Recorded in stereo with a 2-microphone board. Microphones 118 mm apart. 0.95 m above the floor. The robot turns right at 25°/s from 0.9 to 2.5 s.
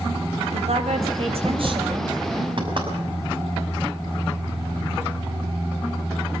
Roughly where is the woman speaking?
Right.